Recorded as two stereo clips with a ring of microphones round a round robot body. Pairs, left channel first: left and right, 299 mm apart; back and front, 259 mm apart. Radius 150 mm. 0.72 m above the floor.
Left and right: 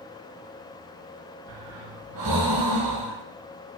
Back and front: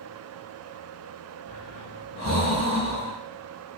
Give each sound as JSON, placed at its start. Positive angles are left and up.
{"t": 1.5, "sound": "breathing", "azimuth_deg": -110, "distance_m": 2.0}